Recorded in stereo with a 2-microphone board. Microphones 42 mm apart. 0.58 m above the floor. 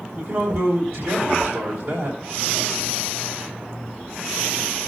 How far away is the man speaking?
About 3.5 m.